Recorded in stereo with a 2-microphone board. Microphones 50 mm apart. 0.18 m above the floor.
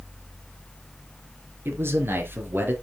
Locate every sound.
1.6 s a man speaking: 55° right (ahead or behind), 3 m; by 2.7 s 45° right (ahead or behind), 4 m